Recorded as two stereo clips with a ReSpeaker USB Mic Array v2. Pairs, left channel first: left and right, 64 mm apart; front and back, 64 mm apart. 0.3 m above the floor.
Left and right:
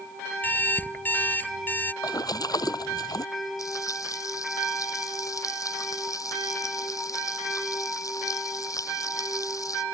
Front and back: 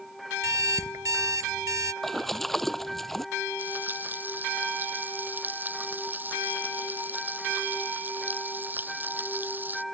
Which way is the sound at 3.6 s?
120° left.